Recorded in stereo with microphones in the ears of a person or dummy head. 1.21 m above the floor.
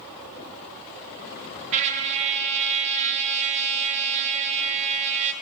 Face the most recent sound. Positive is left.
turn(degrees=-40)  # may be behind; listen again after turning